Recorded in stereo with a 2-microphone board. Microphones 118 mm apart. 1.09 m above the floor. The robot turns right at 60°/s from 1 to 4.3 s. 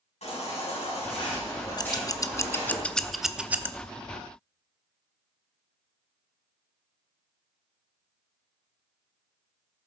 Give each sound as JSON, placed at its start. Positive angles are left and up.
{"t": 0.2, "sound": "a baby crying", "azimuth_deg": 115, "distance_m": 7.0}
{"t": 1.8, "sound": "scissors", "side_deg": 35, "distance_m": 0.6}